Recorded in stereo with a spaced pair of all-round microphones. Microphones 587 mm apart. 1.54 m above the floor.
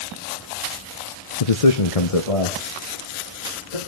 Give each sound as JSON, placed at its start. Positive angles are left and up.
{"t": 1.4, "sound": "a man speaking", "side_deg": 75, "distance_m": 1.0}